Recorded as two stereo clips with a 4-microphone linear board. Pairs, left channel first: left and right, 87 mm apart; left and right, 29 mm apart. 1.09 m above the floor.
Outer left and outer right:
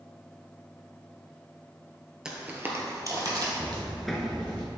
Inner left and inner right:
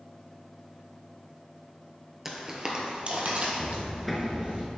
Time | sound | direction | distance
2.2 | footsteps | 10° right (ahead or behind) | 1.1 m
3.6 | footsteps | centre (ahead or behind) | 1.0 m